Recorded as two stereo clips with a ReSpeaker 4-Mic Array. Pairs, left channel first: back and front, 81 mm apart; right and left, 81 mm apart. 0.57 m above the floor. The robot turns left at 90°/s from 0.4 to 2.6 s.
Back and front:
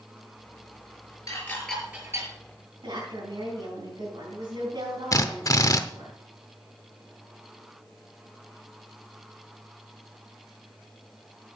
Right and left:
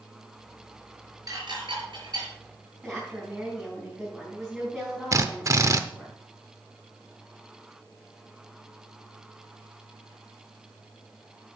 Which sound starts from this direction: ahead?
A woman speaking, at 2.8 s.